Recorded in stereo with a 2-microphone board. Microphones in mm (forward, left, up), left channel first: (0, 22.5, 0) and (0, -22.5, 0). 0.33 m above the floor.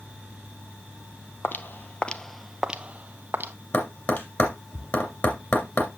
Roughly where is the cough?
No cough in this recording.